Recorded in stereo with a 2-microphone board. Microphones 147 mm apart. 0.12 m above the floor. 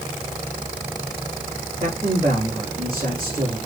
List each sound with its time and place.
1.8 s a man speaking: 35° right (ahead or behind), 4.5 m